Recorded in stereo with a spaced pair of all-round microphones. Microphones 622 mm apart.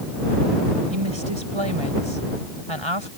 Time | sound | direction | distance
0.9 | a woman speaking | 45° right (ahead or behind) | ?